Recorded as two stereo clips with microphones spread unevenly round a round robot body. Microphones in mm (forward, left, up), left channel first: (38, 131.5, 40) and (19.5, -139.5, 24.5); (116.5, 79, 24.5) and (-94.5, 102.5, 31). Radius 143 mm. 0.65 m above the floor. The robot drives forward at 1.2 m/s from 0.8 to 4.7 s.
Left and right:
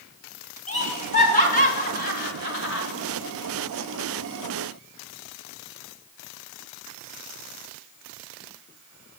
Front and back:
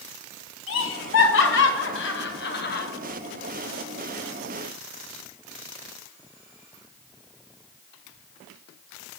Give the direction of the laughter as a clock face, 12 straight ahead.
11 o'clock.